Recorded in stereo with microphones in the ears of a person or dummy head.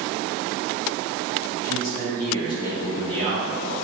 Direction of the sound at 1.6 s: 50° left (ahead or behind).